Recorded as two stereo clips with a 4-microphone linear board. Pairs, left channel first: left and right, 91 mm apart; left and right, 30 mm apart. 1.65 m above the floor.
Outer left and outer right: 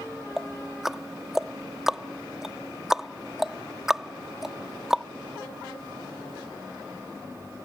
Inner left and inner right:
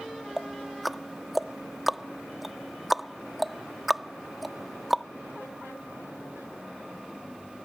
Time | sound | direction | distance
0.4 | ticking | 5° right (ahead or behind) | ?